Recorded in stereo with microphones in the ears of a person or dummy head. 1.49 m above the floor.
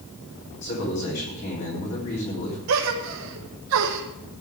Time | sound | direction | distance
0.6 | a man speaking | 50° left (ahead or behind) | 3 m
2.7 | a gasp | 75° right (ahead or behind) | 1.3 m